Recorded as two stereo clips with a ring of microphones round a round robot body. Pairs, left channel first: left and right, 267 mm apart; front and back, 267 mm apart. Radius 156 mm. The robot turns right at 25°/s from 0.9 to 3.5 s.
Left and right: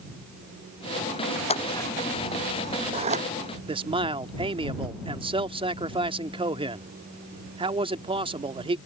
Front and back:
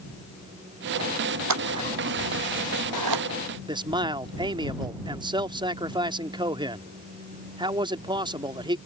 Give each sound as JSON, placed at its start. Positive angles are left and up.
{"t": 1.5, "sound": "scissors", "azimuth_deg": 160}
{"t": 3.7, "sound": "a man speaking", "azimuth_deg": -130}